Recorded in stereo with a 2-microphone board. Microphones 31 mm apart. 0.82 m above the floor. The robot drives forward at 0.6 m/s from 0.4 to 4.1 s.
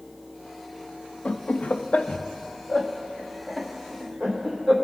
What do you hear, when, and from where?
1.2 s laughter: 45° left (ahead or behind), 0.5 m; by 4.8 s 15° left (ahead or behind), 1.6 m